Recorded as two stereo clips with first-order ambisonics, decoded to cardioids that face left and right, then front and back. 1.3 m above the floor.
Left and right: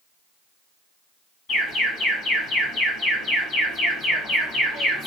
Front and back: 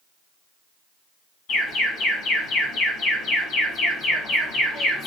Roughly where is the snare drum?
I don't hear a snare drum.